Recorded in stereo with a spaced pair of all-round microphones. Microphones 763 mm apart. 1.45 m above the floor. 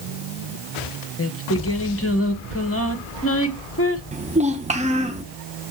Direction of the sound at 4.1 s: 10° right (ahead or behind).